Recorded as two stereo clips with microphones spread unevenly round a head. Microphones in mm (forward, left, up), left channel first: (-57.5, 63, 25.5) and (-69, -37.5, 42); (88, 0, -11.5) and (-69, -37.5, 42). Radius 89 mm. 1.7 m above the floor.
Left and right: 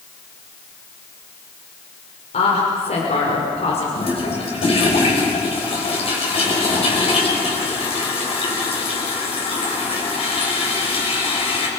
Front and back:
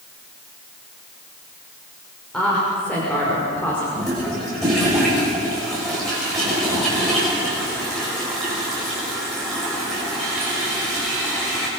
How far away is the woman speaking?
About 5.5 m.